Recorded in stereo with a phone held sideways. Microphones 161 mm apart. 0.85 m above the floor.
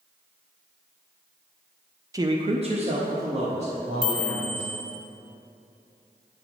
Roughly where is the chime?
Right.